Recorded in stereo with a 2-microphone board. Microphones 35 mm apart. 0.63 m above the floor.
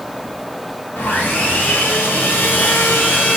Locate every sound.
1.0 s sawing: 80° left, 2 m